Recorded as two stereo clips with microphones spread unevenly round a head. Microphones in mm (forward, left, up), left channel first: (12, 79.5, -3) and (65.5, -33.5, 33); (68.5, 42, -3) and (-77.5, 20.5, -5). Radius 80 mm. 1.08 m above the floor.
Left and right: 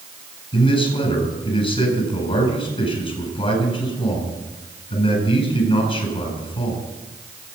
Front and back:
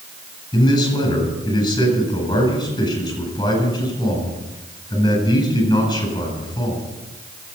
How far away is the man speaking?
About 9 m.